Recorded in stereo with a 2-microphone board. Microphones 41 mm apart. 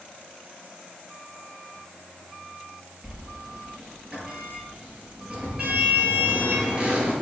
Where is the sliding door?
20° right (ahead or behind), 4.5 m.